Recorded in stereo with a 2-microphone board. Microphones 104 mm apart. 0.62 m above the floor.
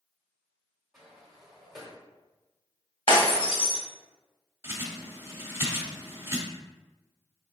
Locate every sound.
0.9 s a sliding door: 5° right (ahead or behind), 1.2 m
3.1 s breaking glass: 55° left (ahead or behind), 1.4 m
4.6 s a bird: 25° right (ahead or behind), 1.0 m